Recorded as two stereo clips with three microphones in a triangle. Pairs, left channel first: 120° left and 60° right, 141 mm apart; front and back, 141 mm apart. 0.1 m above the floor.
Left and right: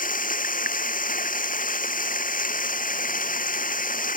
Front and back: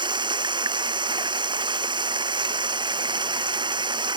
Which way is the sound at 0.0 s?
125° left.